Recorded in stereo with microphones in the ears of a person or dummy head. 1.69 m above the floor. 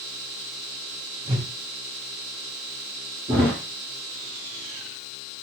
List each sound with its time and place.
1.2 s a whoosh: 20° right (ahead or behind), 1.4 m
3.3 s a thud: 20° right (ahead or behind), 2.5 m